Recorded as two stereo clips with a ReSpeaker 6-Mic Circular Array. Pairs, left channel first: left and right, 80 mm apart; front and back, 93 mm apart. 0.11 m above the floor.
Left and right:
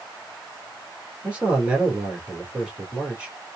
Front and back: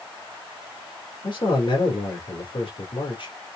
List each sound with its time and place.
1.2 s a man speaking: 15° right, 2.5 m